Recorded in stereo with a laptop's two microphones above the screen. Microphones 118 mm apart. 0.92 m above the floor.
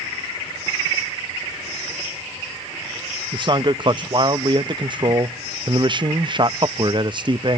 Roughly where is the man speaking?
Right.